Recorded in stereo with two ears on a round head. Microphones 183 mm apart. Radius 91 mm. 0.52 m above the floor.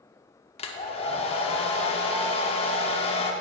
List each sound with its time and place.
0.6 s a hair dryer: 30° left (ahead or behind), 0.7 m